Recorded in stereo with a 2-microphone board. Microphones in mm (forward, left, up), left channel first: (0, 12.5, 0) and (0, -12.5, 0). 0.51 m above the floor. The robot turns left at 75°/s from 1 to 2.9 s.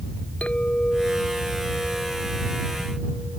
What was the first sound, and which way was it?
A clink, 55° left.